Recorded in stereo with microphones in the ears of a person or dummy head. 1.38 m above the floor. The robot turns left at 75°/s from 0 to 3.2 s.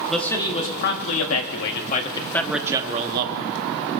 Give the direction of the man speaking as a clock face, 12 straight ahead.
6 o'clock.